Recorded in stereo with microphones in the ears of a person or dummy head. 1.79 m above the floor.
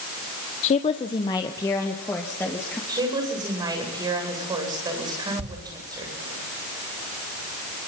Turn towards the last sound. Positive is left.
turn(degrees=-45)  # may be behind; listen again after turning